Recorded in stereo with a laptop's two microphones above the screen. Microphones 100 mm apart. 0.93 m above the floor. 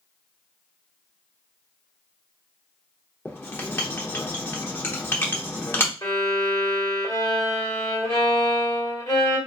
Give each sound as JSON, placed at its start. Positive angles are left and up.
{"t": 3.2, "sound": "writing", "side_deg": 20, "distance_m": 0.9}
{"t": 6.0, "sound": "a violin", "side_deg": 35, "distance_m": 1.6}